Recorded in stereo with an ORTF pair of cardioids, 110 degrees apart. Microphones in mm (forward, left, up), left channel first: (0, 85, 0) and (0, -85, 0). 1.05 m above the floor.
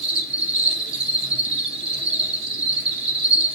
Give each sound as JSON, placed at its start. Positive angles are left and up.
{"t": 0.0, "sound": "an insect", "azimuth_deg": -35, "distance_m": 1.0}